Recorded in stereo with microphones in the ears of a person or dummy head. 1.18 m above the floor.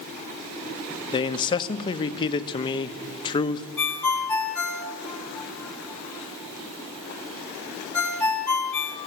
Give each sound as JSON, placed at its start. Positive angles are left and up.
{"t": 1.1, "sound": "a man speaking", "side_deg": 30, "distance_m": 1.3}
{"t": 3.8, "sound": "a ringtone", "side_deg": 15, "distance_m": 1.8}